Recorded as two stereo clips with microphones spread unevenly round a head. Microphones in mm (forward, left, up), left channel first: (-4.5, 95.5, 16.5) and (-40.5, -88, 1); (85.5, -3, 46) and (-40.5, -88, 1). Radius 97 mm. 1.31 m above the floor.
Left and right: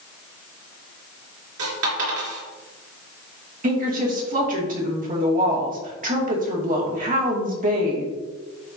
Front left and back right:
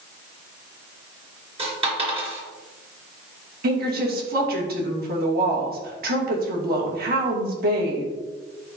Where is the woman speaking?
145° right, 2.5 m.